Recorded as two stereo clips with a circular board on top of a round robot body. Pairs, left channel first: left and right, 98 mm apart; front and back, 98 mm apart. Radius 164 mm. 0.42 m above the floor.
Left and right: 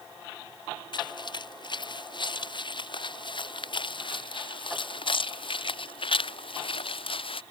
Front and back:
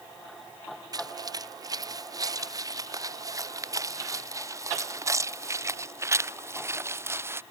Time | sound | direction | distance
0.9 | footsteps | 130° left | ?